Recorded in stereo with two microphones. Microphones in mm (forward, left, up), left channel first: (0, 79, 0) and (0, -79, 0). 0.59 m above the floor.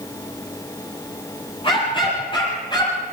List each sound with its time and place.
1.6 s a dog barking: 30° left (ahead or behind), 8 m; by 3.0 s 25° left (ahead or behind), 7 m